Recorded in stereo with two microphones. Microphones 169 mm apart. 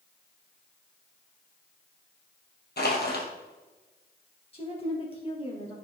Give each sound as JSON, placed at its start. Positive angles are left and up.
{"t": 2.8, "sound": "crushing", "side_deg": 70, "distance_m": 2.5}
{"t": 4.5, "sound": "a woman speaking", "side_deg": 35, "distance_m": 3.0}